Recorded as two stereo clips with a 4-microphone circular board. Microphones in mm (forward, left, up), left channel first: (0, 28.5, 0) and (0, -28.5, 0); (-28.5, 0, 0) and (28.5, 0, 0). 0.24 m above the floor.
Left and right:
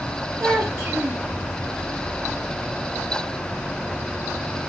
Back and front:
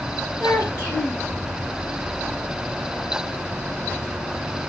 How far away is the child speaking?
About 2.5 m.